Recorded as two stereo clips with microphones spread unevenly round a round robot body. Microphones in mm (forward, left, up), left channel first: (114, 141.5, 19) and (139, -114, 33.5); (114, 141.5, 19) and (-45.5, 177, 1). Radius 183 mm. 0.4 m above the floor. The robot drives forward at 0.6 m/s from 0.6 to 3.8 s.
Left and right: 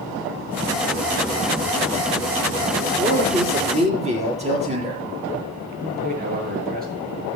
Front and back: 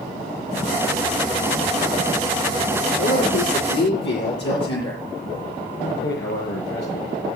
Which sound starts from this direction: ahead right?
A man speaking, at 5.8 s.